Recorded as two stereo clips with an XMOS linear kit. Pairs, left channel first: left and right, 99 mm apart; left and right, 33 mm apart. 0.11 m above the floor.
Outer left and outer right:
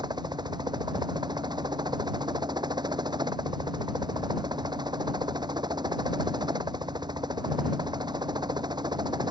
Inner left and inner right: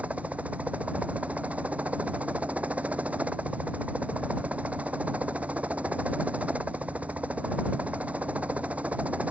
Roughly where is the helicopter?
Right.